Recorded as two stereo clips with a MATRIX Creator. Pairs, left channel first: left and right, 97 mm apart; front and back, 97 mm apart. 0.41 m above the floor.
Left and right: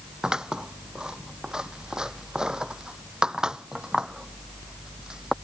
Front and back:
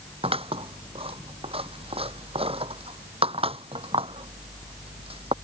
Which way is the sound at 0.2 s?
170° right.